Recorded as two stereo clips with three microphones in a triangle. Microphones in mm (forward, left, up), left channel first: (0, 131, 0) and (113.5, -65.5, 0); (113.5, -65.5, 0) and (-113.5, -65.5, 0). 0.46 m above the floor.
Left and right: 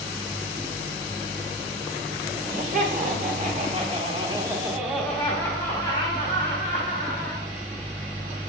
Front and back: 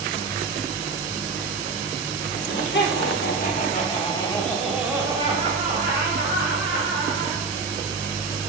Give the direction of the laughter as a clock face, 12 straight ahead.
1 o'clock.